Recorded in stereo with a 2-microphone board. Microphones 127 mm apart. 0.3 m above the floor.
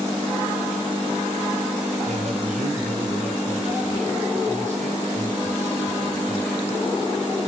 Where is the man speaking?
75° right (ahead or behind), 7.5 m.